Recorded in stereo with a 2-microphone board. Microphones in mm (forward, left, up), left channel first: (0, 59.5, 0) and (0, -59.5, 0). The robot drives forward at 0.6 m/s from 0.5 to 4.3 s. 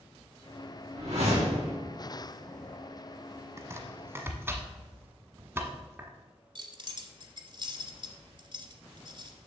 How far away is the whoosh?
About 3.5 m.